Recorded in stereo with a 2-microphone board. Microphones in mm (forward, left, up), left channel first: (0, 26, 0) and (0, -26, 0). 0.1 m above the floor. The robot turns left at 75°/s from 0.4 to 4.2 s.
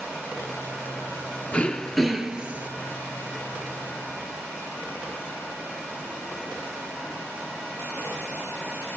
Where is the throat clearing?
40° left, 1.4 m; by 2.7 s 45° right, 1.4 m.